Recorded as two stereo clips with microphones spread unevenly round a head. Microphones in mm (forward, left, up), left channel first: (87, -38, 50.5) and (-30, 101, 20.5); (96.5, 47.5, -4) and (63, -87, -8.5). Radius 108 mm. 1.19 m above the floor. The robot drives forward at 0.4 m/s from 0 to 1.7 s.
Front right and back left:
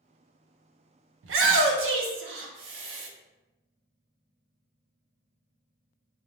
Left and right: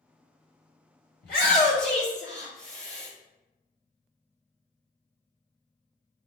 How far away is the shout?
About 0.8 m.